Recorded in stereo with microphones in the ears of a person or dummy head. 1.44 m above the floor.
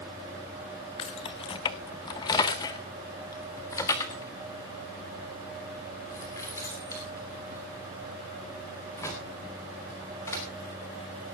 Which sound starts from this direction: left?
Keys jangling, at 1.0 s.